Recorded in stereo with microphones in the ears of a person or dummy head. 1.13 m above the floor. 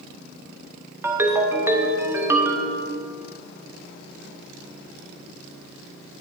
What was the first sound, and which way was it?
A ringtone, 15° right (ahead or behind).